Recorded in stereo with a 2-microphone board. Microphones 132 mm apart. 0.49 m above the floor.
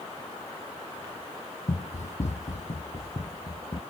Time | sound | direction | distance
1.7 | running footsteps | 60° left (ahead or behind) | ?